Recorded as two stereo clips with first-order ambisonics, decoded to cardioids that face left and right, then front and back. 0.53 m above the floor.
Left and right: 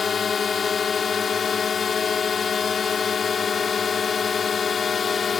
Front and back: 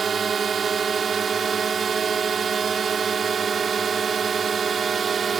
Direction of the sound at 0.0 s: 140° left.